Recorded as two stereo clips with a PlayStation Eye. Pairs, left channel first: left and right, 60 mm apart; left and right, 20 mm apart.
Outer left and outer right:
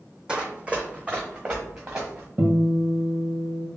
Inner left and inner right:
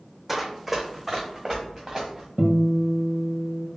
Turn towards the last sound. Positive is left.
turn(degrees=-30)  # may be behind; listen again after turning